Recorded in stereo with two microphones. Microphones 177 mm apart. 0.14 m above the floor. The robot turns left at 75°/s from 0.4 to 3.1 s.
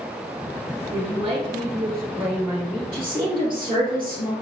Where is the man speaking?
20° right (ahead or behind), 1.8 m; by 2.8 s 10° left (ahead or behind), 1.8 m.